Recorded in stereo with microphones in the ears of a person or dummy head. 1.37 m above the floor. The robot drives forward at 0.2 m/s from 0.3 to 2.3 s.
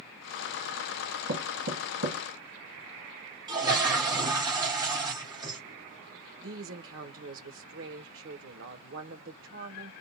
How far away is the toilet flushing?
About 1.1 m.